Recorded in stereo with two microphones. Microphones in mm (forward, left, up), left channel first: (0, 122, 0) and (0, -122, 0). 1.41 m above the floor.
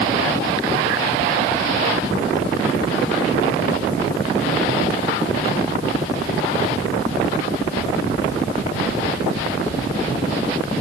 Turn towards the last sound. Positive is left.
No sound to turn to.